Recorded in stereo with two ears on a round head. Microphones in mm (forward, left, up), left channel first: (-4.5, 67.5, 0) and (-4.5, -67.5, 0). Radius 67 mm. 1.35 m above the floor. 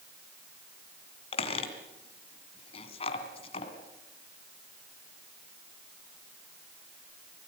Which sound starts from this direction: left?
A squeak, at 1.3 s.